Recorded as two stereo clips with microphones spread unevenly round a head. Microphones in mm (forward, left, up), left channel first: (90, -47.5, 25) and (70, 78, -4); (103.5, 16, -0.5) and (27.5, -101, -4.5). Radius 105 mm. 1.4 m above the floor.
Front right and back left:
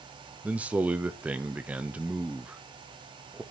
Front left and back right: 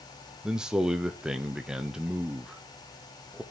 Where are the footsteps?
No footsteps in this recording.